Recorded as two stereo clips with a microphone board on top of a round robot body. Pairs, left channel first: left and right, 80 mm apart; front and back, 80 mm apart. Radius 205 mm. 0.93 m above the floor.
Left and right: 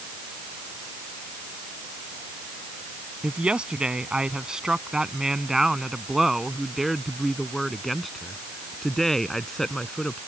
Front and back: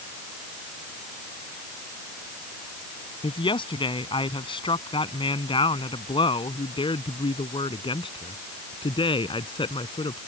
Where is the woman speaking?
10° right; by 10.2 s 5° left.